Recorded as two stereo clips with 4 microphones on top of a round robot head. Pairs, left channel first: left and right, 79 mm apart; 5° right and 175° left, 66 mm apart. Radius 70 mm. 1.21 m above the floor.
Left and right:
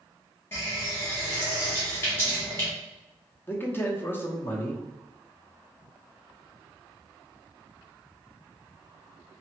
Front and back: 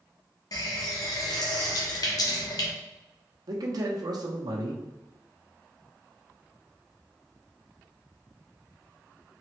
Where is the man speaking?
155° left, 0.8 m.